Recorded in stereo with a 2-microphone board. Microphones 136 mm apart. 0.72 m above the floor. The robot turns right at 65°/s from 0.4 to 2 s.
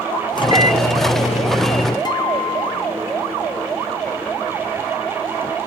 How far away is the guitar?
About 1.5 m.